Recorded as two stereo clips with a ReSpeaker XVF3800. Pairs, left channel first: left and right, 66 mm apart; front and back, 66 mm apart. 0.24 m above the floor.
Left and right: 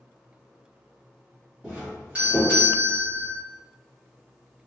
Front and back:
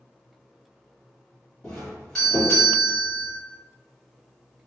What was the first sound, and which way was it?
A doorbell, 60° right.